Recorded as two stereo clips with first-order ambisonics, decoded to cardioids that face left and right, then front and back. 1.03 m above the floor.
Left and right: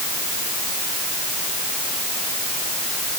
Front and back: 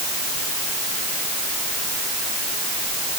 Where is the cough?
I don't hear a cough.